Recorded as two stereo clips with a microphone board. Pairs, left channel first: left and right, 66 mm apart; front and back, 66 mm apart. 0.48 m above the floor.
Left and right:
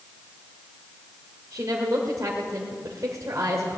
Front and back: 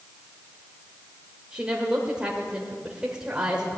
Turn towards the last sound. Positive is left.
turn(degrees=-110)